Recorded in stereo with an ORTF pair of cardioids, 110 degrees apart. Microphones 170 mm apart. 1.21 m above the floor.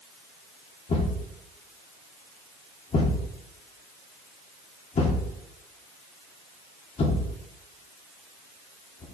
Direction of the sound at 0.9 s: 40° left.